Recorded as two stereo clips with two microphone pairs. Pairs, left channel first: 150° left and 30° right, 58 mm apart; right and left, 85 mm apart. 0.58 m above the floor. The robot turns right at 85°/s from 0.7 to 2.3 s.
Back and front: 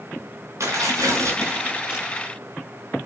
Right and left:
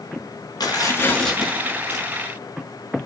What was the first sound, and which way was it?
Tearing paper, 55° right.